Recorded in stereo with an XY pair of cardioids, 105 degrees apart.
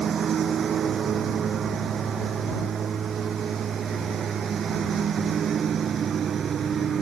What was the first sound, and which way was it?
A lawn mower, 50° right.